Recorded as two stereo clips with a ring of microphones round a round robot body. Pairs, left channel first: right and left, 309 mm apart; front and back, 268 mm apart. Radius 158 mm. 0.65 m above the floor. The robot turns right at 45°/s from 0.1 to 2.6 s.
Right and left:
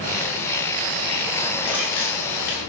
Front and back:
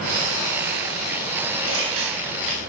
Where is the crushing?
170° left, 9.5 m; by 2.6 s 145° right, 9.5 m.